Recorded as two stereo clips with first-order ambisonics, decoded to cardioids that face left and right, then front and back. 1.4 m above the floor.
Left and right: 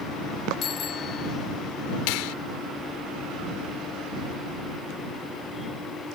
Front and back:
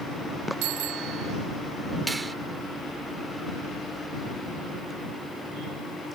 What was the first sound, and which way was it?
A bicycle bell, 150° left.